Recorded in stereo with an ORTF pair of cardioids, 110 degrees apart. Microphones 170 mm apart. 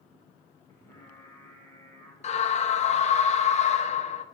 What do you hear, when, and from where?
0.7 s singing: 15° left, 2.5 m
2.2 s a scream: 40° left, 0.9 m